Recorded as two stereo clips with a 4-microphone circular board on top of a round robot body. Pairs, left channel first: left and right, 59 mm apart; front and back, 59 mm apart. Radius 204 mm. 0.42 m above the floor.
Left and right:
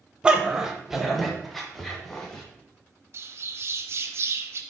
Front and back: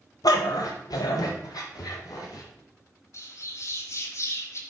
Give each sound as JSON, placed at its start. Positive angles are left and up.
{"t": 0.2, "sound": "a dog barking", "azimuth_deg": -15, "distance_m": 0.9}
{"t": 3.1, "sound": "a bird", "azimuth_deg": -40, "distance_m": 0.9}